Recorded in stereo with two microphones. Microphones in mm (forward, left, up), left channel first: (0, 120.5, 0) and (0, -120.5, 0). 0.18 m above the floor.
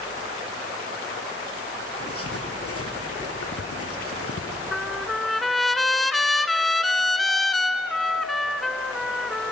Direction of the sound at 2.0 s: 70° left (ahead or behind).